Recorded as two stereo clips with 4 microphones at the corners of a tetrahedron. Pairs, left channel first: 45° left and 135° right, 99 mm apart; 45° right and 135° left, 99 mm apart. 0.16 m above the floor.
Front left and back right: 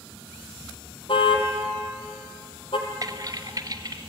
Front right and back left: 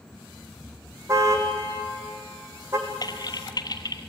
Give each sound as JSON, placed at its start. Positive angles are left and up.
{"t": 1.1, "sound": "a car horn", "azimuth_deg": 75, "distance_m": 3.0}
{"t": 3.0, "sound": "typing on a keyboard", "azimuth_deg": -85, "distance_m": 1.3}